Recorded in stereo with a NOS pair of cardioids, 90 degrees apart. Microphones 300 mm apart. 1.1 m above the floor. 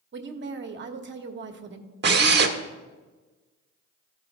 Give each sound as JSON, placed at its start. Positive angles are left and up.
{"t": 0.1, "sound": "a woman speaking", "azimuth_deg": -40, "distance_m": 1.1}
{"t": 2.0, "sound": "a drill", "azimuth_deg": -35, "distance_m": 1.3}